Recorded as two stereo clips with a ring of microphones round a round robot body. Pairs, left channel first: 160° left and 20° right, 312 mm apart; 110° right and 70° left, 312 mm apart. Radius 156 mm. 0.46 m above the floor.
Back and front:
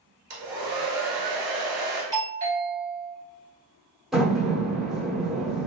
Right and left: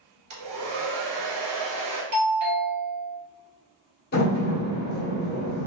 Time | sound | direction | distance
0.3 | a hair dryer | 30° left | 1.4 m
2.1 | a doorbell | 40° left | 2.0 m
4.1 | a door slam | 110° right | 0.7 m